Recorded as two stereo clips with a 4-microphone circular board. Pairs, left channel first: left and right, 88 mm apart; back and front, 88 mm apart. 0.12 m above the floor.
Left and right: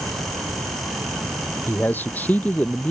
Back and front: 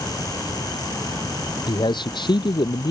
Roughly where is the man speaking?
Behind left.